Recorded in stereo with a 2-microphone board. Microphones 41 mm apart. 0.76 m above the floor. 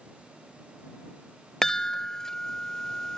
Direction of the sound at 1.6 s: 15° left (ahead or behind).